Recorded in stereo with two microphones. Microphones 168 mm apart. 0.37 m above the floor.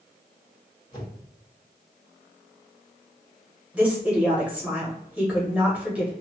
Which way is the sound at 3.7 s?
10° right (ahead or behind).